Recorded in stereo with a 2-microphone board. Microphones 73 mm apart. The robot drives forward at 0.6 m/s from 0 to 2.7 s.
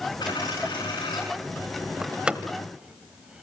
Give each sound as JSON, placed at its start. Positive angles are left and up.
{"t": 0.2, "sound": "a dropped coin", "side_deg": 75, "distance_m": 9.5}
{"t": 2.0, "sound": "a door slam", "side_deg": -15, "distance_m": 0.9}